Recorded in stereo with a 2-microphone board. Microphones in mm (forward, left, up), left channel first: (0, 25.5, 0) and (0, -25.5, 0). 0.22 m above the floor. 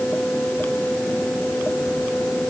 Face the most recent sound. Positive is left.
No sound to turn to.